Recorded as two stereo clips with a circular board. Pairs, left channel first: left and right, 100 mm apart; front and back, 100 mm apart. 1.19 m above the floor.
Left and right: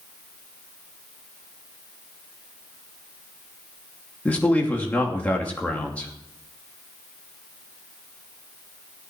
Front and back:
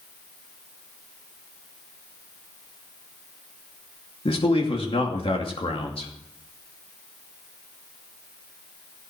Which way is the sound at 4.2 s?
15° left.